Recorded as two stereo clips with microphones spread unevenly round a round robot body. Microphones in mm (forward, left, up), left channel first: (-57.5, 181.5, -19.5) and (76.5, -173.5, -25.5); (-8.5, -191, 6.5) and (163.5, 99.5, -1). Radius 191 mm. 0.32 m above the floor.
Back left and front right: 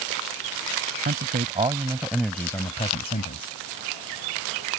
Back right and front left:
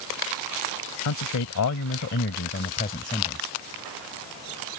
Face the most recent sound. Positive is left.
turn(degrees=165)